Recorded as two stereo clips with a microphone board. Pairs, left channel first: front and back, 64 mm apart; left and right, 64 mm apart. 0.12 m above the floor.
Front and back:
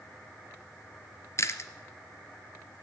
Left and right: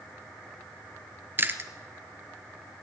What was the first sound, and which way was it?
Chewing, 35° right.